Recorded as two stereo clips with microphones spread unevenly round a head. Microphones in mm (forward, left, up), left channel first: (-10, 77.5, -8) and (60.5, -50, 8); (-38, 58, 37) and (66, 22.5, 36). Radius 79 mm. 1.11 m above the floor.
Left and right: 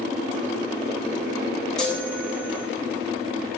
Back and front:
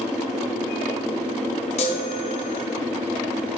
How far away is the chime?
About 1.0 m.